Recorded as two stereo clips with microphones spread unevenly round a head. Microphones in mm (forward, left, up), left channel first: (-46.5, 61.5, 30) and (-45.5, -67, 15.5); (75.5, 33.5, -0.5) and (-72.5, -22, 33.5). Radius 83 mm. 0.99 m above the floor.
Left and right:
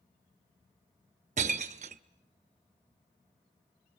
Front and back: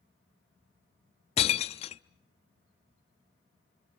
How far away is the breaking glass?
About 0.6 m.